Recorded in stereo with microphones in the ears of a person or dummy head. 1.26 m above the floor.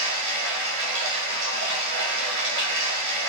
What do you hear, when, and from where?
0.0 s running water: 65° right (ahead or behind), 0.9 m